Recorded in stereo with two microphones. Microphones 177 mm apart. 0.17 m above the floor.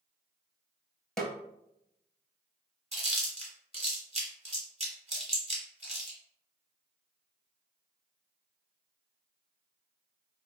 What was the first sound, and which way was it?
A snare drum, 5° left (ahead or behind).